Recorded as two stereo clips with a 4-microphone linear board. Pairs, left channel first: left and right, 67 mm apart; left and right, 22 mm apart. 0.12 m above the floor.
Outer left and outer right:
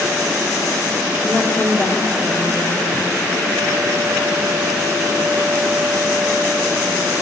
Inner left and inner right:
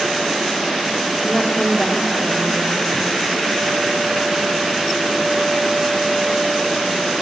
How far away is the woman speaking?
About 5 m.